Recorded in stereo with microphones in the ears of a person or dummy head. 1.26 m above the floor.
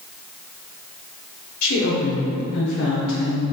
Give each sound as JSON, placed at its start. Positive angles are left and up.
{"t": 1.6, "sound": "a woman speaking", "side_deg": 80, "distance_m": 0.9}